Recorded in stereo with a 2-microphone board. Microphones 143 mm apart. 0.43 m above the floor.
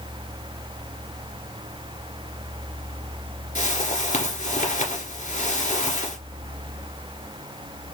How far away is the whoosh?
About 1.8 m.